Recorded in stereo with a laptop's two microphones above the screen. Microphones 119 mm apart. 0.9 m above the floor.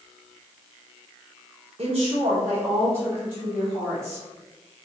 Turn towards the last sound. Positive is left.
turn(degrees=0)  # may be behind; listen again after turning